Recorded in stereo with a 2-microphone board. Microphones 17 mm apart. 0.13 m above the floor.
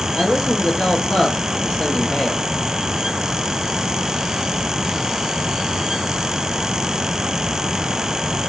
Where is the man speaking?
65° left (ahead or behind), 3.5 m.